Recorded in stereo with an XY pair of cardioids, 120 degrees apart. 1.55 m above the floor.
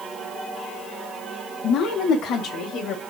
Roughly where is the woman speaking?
Ahead left.